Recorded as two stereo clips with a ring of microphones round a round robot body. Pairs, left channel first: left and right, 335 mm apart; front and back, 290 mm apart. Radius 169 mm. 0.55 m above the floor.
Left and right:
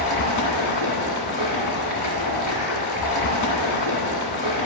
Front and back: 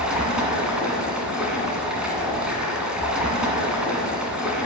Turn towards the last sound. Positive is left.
turn(degrees=95)